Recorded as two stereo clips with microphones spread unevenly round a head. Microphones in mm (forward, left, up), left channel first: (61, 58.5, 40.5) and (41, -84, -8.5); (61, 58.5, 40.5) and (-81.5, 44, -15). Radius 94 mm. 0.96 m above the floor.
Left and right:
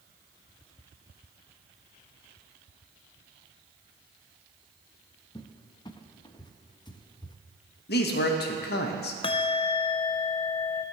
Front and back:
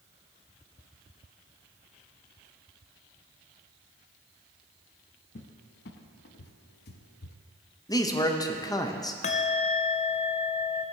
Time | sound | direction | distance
5.3 | a cupboard door | 20° left | 0.7 m
7.9 | a man speaking | 85° left | 1.0 m
9.2 | a bell | 30° left | 0.5 m